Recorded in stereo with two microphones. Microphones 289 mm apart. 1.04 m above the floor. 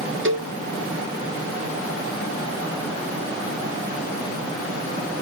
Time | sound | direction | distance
0.2 | a cowbell | 40° right (ahead or behind) | ?